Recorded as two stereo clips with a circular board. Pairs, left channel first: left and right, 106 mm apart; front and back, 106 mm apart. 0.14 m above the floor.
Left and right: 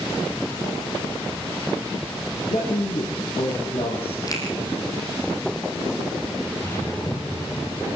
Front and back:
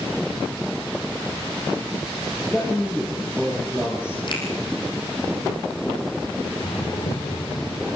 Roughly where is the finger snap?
Ahead left.